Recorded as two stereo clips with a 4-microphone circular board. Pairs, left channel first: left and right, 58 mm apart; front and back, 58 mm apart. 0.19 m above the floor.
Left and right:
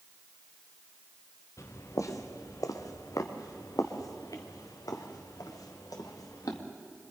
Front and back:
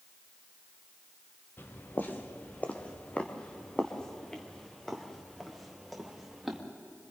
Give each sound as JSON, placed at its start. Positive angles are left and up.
{"t": 1.6, "sound": "footsteps", "azimuth_deg": 55, "distance_m": 2.5}